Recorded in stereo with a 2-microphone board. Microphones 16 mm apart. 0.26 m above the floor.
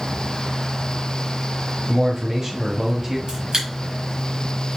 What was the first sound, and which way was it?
A man speaking, 30° right (ahead or behind).